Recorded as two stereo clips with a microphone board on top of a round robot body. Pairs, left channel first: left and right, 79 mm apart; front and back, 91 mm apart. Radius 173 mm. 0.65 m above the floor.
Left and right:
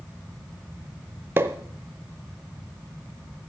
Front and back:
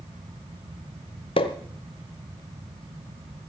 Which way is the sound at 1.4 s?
30° right.